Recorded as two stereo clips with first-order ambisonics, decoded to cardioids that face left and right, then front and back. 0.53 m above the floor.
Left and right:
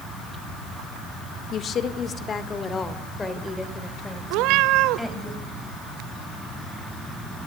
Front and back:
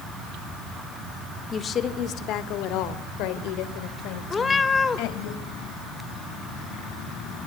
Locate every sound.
1.5 s a woman speaking: 55° left, 1.3 m; by 5.3 s 5° left, 3.5 m
4.3 s a cat meowing: 75° right, 1.1 m